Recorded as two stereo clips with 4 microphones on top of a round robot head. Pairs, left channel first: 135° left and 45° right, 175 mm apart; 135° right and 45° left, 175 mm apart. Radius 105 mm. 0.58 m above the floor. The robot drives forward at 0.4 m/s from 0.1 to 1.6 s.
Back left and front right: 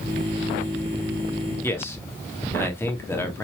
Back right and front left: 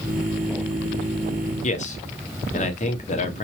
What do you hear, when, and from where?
1.6 s a man speaking: 155° right, 1.3 m